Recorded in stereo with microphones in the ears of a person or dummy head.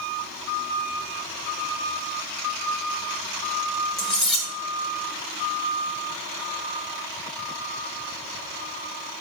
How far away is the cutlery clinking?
About 1.3 m.